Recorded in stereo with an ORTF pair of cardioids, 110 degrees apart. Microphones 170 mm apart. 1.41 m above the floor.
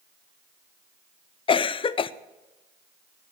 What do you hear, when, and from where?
1.5 s a cough: 30° left, 0.7 m